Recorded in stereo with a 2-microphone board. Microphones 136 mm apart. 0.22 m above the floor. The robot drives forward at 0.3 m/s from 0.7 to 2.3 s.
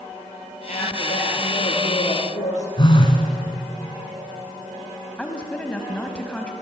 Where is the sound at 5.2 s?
10° left (ahead or behind), 1.1 m.